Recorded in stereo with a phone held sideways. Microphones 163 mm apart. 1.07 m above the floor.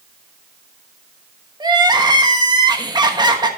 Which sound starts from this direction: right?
Crying, at 1.6 s.